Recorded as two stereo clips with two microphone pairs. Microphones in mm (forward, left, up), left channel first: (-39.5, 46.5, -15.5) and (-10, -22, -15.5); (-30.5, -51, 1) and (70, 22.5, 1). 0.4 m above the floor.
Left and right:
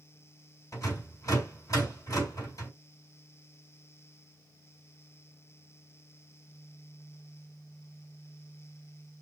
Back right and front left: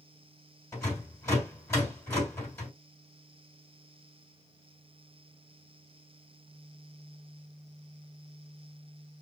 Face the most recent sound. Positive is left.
turn(degrees=150)